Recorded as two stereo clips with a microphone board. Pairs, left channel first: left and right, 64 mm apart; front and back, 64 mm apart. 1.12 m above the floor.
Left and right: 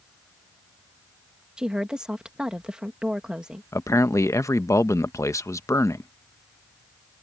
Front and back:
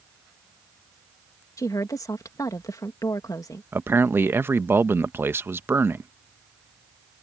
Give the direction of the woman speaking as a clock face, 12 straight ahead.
12 o'clock.